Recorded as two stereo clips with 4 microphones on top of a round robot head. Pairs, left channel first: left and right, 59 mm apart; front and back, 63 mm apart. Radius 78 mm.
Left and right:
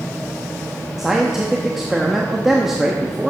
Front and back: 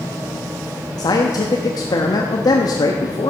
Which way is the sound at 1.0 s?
5° right.